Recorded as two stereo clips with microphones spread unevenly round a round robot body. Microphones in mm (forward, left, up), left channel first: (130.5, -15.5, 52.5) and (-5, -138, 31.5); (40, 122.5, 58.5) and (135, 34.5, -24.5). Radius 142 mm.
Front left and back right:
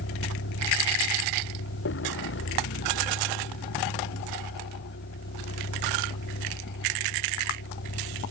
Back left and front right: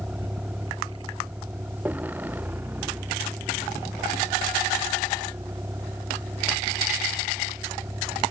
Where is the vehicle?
40° left; by 8.3 s 30° left.